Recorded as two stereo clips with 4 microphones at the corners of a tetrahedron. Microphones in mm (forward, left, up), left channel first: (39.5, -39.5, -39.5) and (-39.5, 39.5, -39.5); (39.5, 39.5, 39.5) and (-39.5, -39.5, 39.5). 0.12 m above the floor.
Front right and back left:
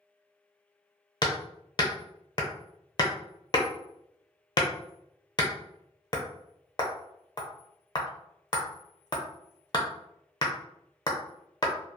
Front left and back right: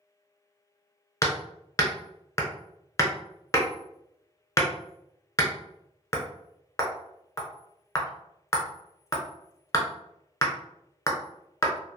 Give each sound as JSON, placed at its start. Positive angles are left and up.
{"t": 1.2, "sound": "hammering", "azimuth_deg": -10, "distance_m": 0.6}